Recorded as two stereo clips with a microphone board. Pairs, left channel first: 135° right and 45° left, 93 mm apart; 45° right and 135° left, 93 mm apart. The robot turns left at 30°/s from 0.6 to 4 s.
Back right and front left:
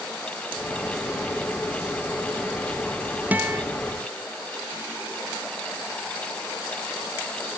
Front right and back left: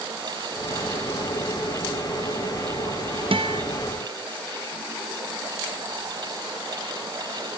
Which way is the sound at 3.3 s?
120° left.